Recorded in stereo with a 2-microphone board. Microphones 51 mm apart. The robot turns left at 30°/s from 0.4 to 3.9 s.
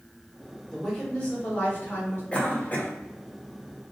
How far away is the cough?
About 1.1 m.